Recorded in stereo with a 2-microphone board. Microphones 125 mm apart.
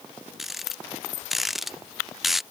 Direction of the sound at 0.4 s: Centre (ahead or behind).